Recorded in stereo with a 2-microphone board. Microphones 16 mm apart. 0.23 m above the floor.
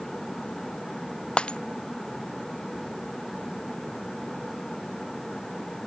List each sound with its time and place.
1.4 s breaking glass: 85° left